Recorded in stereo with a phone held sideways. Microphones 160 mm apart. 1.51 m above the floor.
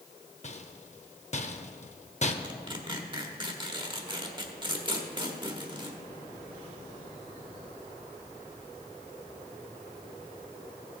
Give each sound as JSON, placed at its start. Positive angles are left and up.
{"t": 0.4, "sound": "a rattle", "side_deg": 45, "distance_m": 0.7}
{"t": 2.4, "sound": "tearing paper", "side_deg": -30, "distance_m": 1.1}